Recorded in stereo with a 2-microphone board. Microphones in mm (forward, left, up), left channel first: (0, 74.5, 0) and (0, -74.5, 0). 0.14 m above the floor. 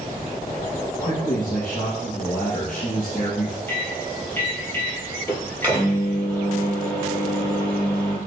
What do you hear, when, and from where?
1.0 s a man speaking: 60° left (ahead or behind), 3 m
3.7 s a microwave: 15° left (ahead or behind), 3.5 m